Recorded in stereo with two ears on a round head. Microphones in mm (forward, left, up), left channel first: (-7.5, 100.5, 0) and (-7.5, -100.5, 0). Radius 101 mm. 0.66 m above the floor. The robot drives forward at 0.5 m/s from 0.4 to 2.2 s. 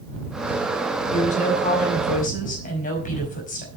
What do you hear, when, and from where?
1.1 s a woman speaking: 35° left (ahead or behind), 5.5 m